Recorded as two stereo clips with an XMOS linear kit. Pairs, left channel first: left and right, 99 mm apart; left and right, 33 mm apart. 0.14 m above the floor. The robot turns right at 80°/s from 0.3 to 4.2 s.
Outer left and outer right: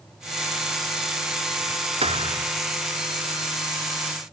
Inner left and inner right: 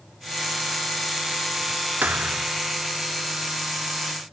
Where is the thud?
90° right; by 2.5 s 50° right.